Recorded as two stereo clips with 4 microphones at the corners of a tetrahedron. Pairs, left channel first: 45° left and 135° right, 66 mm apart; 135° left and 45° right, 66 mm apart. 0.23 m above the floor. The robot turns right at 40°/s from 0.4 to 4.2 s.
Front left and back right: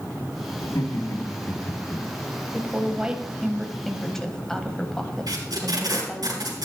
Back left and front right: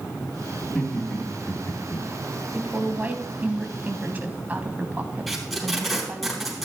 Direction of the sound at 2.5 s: 95° right.